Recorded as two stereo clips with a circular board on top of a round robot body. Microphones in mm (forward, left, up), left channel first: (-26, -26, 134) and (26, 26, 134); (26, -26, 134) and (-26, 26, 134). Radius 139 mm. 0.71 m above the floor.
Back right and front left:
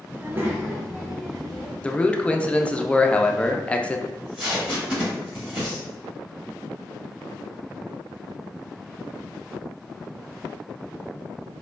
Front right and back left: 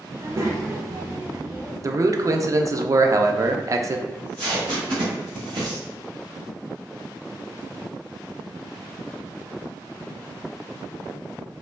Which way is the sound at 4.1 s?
125° left.